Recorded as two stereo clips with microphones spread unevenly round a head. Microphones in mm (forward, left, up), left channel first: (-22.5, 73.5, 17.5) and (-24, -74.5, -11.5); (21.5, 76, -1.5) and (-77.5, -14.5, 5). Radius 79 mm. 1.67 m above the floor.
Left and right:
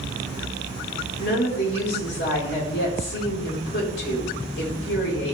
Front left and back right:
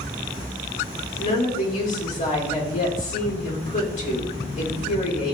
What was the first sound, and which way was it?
A woman speaking, 75° left.